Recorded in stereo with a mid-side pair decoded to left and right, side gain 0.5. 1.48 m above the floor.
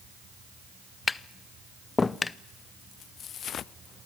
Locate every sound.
1.1 s tapping: 25° left, 0.6 m